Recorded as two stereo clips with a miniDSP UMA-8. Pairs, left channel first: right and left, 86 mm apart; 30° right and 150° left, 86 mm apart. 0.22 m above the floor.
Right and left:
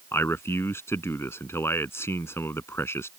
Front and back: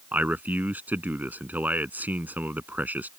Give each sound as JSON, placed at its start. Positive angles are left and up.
{"t": 0.1, "sound": "a man speaking", "azimuth_deg": -145}